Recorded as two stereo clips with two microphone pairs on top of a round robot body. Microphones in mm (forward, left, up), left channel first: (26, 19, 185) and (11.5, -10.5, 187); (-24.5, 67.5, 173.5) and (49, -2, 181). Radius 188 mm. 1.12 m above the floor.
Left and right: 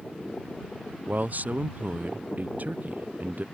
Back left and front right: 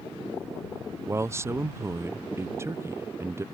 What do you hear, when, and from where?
1.1 s a man speaking: 105° right